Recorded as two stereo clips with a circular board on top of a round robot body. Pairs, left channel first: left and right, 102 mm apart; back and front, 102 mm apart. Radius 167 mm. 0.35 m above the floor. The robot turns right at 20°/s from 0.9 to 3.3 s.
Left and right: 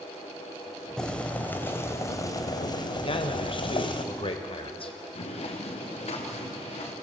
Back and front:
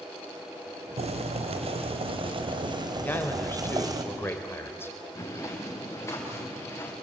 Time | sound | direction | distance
1.0 | boiling | 5° left | 2 m
3.0 | a man speaking | 110° left | 2.5 m
5.2 | footsteps | 120° left | 4 m